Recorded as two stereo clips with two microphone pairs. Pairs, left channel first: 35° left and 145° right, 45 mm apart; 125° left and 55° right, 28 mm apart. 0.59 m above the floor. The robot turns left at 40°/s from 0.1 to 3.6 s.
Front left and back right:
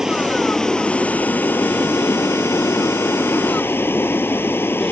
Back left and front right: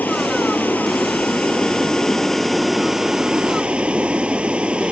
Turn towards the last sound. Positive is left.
turn(degrees=-5)